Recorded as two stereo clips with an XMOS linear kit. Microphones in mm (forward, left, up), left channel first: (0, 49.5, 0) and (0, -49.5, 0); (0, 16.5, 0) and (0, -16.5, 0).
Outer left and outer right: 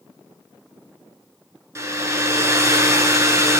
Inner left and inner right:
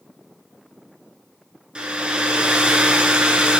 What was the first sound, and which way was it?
A hair dryer, 30° right (ahead or behind).